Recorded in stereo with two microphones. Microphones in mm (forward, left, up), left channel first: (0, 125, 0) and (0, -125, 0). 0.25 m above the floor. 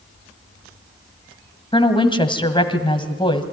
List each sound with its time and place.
1.7 s a woman speaking: 20° left (ahead or behind), 1.5 m